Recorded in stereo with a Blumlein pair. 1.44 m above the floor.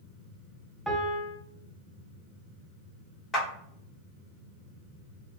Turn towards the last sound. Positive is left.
turn(degrees=20)